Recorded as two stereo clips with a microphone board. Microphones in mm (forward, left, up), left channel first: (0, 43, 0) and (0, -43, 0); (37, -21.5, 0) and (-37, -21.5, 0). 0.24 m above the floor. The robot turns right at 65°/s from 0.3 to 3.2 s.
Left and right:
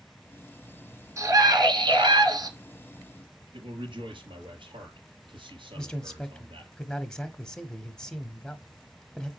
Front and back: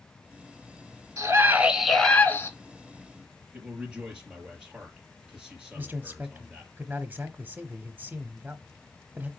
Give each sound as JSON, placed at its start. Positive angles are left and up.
{"t": 1.2, "sound": "a scream", "azimuth_deg": -140, "distance_m": 2.5}
{"t": 3.5, "sound": "a man speaking", "azimuth_deg": -95, "distance_m": 3.5}
{"t": 5.8, "sound": "a man speaking", "azimuth_deg": 160, "distance_m": 1.0}